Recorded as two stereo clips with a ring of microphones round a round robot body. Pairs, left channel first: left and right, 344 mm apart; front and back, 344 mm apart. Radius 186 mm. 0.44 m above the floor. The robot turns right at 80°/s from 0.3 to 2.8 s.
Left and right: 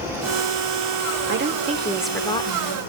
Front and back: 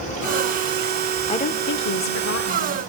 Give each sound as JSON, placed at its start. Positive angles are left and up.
{"t": 1.3, "sound": "a woman speaking", "azimuth_deg": -60, "distance_m": 0.9}